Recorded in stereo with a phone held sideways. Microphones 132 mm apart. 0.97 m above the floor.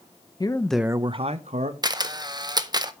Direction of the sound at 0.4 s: 35° left (ahead or behind).